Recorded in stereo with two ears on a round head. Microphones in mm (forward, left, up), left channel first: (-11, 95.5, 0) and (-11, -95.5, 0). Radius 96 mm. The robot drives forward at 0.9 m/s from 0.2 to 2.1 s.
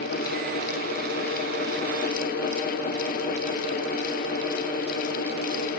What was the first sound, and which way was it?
Only background noise.